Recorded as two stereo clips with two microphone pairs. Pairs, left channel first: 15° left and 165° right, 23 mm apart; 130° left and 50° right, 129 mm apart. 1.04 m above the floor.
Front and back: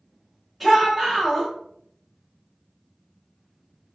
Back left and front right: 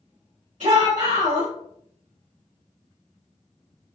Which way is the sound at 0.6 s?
75° right.